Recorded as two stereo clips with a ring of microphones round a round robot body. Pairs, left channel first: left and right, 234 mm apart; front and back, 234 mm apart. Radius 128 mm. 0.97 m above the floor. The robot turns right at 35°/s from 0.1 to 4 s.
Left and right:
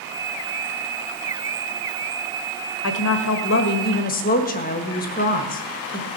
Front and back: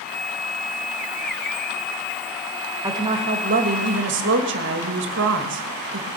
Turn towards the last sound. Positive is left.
turn(degrees=145)